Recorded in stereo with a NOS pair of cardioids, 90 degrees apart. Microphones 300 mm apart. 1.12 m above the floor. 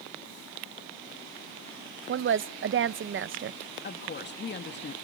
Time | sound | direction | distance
2.1 | a woman speaking | 40° right | 0.7 m
3.8 | a woman speaking | 35° left | 2.0 m